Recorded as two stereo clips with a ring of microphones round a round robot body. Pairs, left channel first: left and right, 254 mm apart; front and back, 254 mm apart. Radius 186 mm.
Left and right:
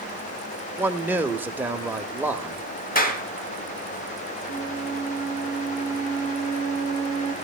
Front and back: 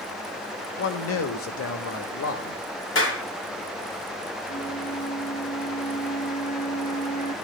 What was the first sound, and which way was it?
A man speaking, 10° right.